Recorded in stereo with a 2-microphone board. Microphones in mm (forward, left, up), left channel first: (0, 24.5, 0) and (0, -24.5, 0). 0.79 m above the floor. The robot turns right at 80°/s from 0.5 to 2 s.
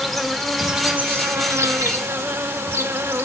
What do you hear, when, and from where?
0.0 s an insect: 175° left, 1.1 m; by 3.2 s 65° right, 1.1 m